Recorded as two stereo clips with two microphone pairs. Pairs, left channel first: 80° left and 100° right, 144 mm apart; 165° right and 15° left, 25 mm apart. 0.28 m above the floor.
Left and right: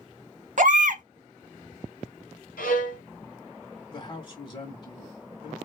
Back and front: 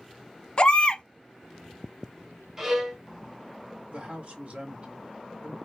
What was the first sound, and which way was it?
A baby crying, 120° right.